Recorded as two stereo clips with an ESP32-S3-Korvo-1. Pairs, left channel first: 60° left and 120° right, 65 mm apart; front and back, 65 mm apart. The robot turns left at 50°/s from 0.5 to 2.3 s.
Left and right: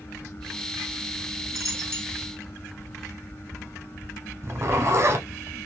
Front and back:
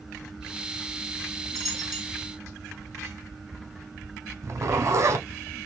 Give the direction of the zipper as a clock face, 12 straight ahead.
5 o'clock.